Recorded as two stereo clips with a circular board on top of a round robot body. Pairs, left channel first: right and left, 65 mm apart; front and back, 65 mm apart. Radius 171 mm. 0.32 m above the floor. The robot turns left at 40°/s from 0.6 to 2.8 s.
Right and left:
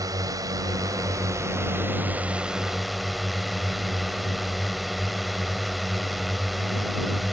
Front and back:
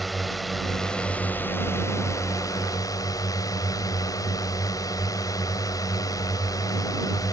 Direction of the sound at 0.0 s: 90° left.